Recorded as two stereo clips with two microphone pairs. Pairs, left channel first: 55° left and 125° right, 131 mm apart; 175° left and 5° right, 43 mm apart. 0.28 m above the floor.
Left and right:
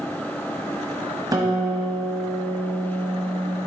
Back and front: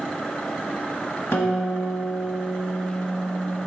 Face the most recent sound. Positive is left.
turn(degrees=180)